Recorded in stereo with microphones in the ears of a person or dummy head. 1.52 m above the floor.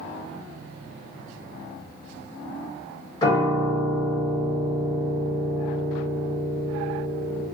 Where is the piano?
25° left (ahead or behind), 1.4 m.